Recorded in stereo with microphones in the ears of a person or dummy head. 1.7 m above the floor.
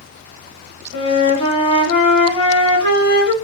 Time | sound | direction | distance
0.9 | a flute | 25° left (ahead or behind) | 4 m